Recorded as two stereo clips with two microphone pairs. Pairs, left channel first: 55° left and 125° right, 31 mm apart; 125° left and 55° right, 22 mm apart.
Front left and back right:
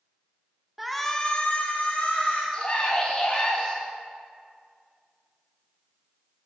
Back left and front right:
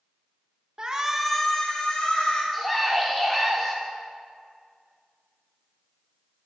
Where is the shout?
45° right, 0.9 m; by 2.4 s 85° left, 2 m.